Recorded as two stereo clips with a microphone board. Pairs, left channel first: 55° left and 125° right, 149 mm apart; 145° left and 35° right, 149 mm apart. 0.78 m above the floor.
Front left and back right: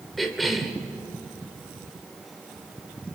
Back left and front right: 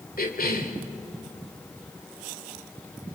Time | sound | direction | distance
0.2 | a cough | 145° left | 2.0 m